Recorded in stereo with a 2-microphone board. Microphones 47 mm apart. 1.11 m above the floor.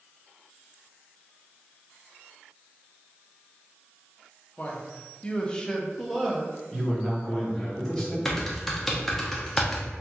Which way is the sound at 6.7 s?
Centre (ahead or behind).